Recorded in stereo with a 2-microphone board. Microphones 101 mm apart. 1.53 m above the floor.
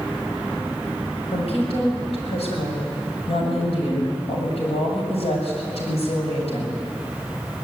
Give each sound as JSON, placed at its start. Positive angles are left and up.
{"t": 1.3, "sound": "a woman speaking", "side_deg": 75, "distance_m": 7.0}